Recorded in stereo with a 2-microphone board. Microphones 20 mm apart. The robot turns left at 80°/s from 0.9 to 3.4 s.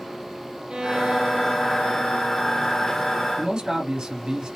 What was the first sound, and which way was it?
A violin, 105° right.